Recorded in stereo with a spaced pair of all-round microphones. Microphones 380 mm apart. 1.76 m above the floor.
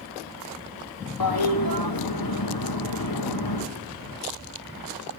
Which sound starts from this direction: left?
A toilet flushing, at 1.2 s.